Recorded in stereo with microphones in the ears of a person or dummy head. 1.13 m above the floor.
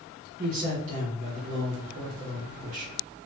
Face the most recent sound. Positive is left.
turn(degrees=-40)  # may be behind; listen again after turning